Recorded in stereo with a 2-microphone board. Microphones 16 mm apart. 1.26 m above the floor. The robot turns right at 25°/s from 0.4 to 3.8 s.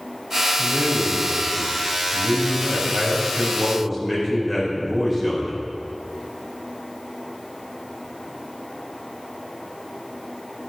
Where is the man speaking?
105° right, 4.5 m; by 5.5 s 25° right, 4.5 m.